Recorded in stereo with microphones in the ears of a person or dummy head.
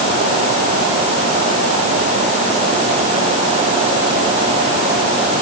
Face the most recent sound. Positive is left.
No sound to turn to.